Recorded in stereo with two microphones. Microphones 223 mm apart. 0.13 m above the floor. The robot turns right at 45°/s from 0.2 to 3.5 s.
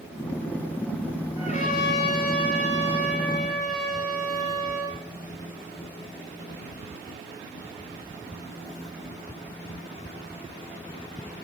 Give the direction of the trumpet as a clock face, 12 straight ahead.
11 o'clock.